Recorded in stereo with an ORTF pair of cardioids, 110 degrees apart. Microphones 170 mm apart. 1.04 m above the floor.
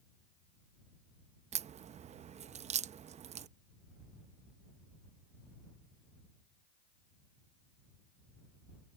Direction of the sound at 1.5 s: 40° right.